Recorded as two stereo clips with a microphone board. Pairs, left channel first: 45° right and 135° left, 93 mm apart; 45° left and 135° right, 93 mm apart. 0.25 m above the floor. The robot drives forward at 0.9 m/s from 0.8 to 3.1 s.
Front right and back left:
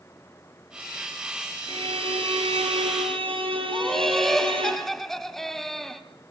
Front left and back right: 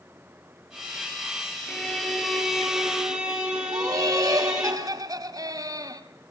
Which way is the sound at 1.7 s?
125° left.